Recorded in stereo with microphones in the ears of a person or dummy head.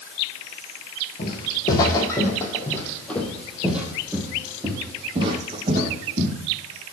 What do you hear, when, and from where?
1.2 s footsteps: 30° left (ahead or behind), 4.5 m; by 6.3 s 40° right (ahead or behind), 4 m